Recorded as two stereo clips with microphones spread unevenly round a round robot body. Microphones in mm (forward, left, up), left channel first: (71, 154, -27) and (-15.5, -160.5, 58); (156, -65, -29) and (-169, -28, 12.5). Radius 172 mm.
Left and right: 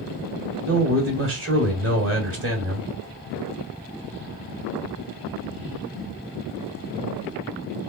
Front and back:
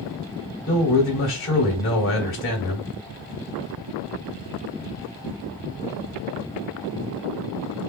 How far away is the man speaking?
About 1.7 m.